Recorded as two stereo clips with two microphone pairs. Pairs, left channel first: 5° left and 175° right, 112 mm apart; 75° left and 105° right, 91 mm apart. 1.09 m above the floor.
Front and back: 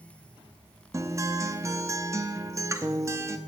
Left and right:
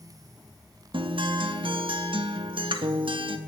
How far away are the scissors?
No scissors in this recording.